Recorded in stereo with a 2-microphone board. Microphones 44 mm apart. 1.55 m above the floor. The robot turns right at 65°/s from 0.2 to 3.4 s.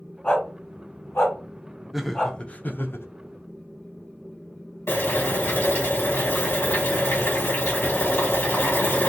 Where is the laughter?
5° right, 0.6 m; by 3.1 s 65° left, 0.6 m.